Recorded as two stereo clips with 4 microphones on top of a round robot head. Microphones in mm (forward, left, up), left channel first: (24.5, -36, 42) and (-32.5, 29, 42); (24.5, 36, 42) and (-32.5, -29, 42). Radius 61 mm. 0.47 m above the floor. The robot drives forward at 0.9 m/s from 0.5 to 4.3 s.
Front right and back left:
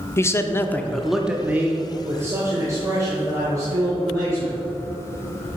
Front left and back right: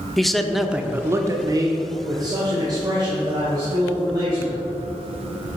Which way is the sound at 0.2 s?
35° right.